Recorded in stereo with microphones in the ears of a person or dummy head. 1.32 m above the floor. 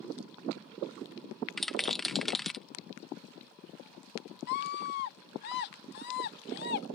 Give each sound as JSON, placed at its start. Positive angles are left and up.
{"t": 1.6, "sound": "a rattle", "side_deg": 0}
{"t": 4.5, "sound": "a scream", "side_deg": 55}